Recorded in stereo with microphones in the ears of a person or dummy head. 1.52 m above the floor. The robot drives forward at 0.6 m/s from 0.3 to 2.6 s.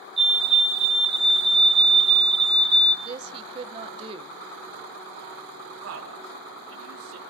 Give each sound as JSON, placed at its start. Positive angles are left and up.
{"t": 0.2, "sound": "a fire alarm", "side_deg": 5, "distance_m": 2.5}
{"t": 3.0, "sound": "a woman speaking", "side_deg": -25, "distance_m": 1.3}
{"t": 5.8, "sound": "a man speaking", "side_deg": -80, "distance_m": 4.5}